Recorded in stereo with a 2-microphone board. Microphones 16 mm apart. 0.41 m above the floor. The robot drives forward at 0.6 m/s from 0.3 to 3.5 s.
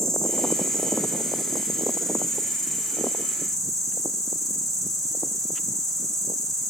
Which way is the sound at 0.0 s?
25° left (ahead or behind).